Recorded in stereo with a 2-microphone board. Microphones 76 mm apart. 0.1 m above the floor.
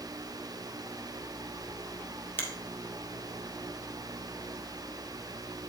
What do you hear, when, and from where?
2.4 s a finger snap: 30° left (ahead or behind), 1.7 m